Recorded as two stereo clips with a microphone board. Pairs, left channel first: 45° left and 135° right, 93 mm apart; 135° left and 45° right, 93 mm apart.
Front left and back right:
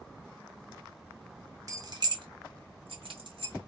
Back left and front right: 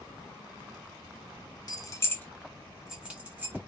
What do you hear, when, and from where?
1.7 s keys jangling: 175° left, 0.7 m; by 3.7 s 110° right, 1.2 m